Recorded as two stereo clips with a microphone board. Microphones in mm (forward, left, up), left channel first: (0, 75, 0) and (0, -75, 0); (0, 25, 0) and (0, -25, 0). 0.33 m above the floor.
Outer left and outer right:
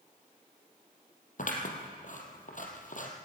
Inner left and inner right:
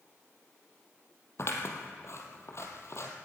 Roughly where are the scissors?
Left.